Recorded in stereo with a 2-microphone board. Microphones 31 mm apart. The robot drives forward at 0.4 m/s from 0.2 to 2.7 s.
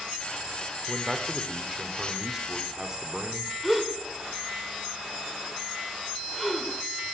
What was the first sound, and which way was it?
A man speaking, 20° right (ahead or behind).